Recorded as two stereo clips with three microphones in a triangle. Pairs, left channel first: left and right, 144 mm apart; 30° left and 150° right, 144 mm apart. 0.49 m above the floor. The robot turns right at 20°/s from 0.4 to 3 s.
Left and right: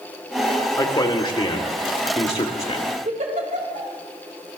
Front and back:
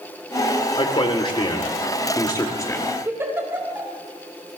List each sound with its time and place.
0.8 s a man speaking: 50° left, 1.7 m; by 2.9 s 90° left, 1.7 m
3.0 s a giggle: 80° right, 3 m